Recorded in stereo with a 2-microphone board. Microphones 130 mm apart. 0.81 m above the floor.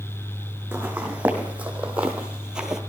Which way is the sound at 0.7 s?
10° right (ahead or behind).